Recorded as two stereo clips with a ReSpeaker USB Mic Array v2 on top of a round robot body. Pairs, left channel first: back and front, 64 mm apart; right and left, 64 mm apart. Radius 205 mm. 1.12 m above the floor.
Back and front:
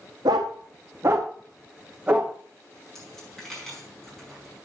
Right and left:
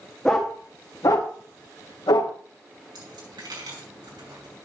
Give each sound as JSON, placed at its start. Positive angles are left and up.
{"t": 0.2, "sound": "a dog barking", "azimuth_deg": -5, "distance_m": 0.6}
{"t": 3.0, "sound": "a dropped coin", "azimuth_deg": 95, "distance_m": 5.0}